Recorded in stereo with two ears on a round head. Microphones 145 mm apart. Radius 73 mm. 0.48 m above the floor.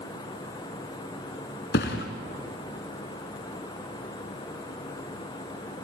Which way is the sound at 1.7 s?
65° left (ahead or behind).